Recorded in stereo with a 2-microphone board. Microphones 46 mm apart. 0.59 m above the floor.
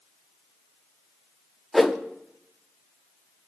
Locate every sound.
1.7 s a whoosh: centre (ahead or behind), 0.8 m